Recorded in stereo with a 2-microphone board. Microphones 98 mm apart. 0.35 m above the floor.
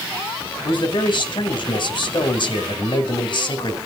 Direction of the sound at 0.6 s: 55° left (ahead or behind).